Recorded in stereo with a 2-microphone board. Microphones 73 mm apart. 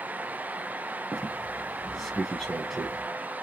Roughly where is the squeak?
Centre.